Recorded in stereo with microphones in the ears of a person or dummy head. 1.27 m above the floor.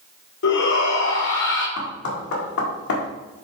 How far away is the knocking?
About 1.7 m.